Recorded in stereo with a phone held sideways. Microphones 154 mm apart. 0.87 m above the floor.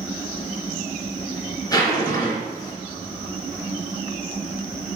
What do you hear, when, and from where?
1.7 s a zipper: 20° left (ahead or behind), 3 m